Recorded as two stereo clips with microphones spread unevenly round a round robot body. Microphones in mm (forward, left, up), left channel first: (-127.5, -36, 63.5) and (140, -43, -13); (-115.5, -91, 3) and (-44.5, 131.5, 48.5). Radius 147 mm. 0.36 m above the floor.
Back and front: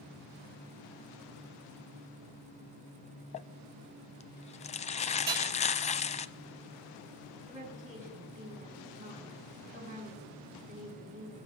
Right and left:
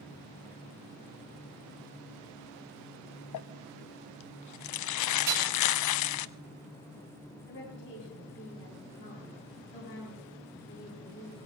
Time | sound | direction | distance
3.3 | crumpling | 115° right | 0.5 m
5.3 | hammering | 55° left | 4.5 m
7.5 | a woman speaking | 65° right | 7 m